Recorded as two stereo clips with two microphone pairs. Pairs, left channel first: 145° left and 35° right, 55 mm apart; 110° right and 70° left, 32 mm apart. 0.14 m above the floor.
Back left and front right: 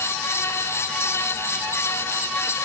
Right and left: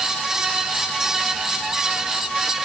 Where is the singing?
No singing in this recording.